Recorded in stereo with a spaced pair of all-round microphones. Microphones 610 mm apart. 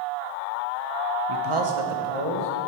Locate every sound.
1.3 s a man speaking: 45° right (ahead or behind), 0.6 m; by 2.5 s 65° right (ahead or behind), 1.2 m